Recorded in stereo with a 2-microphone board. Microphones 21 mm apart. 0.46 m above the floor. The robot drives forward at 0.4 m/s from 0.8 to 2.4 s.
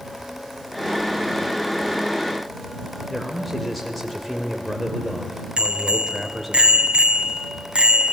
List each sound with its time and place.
3.1 s a man speaking: 5° left (ahead or behind), 2.0 m
5.6 s a bicycle bell: 65° right (ahead or behind), 2 m